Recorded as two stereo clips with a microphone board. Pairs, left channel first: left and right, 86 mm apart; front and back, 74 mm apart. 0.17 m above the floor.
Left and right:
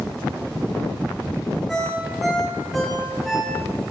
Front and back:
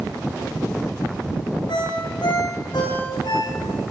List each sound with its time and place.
1.7 s a ringtone: straight ahead, 8.5 m